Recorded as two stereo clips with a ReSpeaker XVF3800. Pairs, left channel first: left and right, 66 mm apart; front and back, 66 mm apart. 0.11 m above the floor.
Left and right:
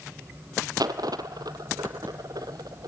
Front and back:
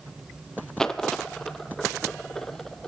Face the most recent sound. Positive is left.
turn(degrees=-80)